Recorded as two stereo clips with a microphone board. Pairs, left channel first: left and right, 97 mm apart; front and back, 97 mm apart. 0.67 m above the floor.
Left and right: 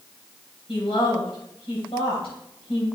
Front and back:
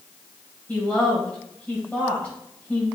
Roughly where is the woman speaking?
Left.